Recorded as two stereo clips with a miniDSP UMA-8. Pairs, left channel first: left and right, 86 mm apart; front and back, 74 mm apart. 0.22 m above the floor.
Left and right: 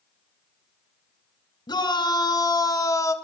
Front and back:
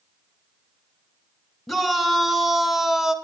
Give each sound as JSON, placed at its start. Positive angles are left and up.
{"t": 1.7, "sound": "a shout", "azimuth_deg": 85, "distance_m": 2.5}